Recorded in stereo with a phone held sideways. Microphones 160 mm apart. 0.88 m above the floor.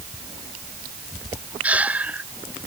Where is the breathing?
10° right (ahead or behind).